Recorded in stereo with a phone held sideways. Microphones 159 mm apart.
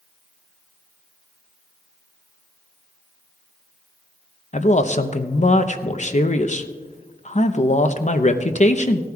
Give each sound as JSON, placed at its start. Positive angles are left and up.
{"t": 4.5, "sound": "a man speaking", "side_deg": 45, "distance_m": 0.7}